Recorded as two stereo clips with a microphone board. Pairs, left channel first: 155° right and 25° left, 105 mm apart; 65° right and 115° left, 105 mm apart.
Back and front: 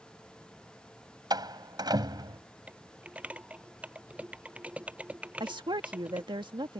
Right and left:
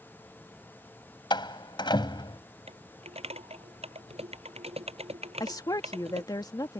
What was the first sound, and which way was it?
A door slam, 25° right.